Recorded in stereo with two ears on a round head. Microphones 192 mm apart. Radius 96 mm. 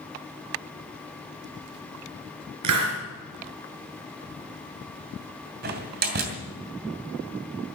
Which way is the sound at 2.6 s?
85° right.